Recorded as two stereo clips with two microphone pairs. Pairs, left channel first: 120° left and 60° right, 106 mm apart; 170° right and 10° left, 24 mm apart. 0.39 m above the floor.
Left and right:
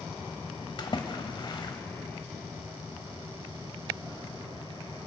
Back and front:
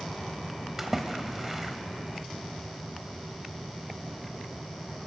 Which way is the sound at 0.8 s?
85° left.